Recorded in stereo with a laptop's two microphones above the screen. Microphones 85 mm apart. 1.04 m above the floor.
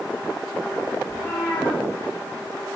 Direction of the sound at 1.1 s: 30° left (ahead or behind).